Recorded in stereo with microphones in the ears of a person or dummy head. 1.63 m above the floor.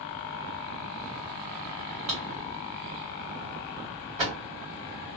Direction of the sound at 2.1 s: 35° right (ahead or behind).